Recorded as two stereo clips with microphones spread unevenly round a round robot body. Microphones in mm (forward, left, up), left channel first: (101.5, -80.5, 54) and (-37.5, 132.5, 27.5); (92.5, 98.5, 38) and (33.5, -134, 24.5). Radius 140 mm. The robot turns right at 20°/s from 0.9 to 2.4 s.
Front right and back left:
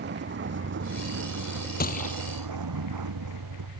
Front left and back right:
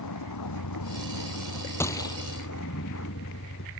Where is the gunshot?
5° right; by 2.2 s 5° left.